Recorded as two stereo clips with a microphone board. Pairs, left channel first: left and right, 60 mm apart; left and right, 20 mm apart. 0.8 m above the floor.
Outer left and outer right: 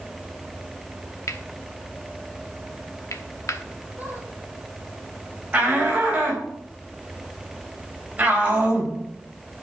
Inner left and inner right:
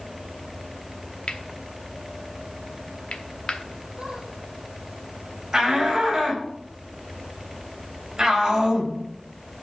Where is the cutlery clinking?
60° left (ahead or behind), 0.9 m.